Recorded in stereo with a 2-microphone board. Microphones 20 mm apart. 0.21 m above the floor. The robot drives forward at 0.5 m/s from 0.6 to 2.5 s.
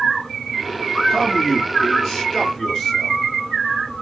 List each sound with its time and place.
1.1 s a man speaking: 10° left (ahead or behind), 2.5 m; by 3.2 s 5° left (ahead or behind), 3 m